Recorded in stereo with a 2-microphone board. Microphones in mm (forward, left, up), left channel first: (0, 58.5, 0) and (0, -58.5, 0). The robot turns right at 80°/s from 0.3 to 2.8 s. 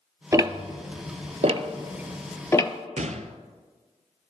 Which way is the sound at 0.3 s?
25° right (ahead or behind).